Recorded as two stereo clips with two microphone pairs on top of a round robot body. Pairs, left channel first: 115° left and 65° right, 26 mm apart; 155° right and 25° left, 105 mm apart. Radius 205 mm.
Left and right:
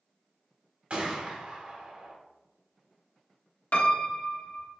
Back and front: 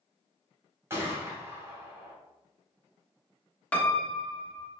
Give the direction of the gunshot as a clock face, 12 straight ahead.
1 o'clock.